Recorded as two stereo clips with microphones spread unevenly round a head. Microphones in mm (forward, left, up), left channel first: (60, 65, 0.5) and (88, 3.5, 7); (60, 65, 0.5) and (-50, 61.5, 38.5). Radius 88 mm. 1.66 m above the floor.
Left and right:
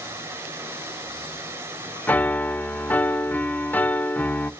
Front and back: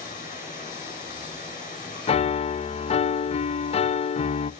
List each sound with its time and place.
0.0 s running water: 10° right, 7 m
2.1 s a piano: 45° left, 0.5 m